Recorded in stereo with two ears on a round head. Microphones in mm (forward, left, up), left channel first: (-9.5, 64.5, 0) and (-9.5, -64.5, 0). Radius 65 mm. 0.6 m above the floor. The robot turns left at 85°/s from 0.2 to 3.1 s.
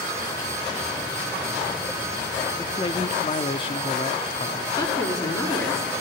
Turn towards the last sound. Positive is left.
turn(degrees=25)  # may be behind; listen again after turning